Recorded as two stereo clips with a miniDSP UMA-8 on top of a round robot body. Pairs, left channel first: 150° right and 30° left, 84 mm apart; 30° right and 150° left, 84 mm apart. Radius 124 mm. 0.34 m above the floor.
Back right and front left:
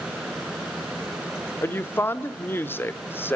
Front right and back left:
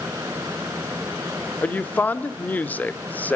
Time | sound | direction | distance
1.6 | a woman speaking | 95° right | 1.2 m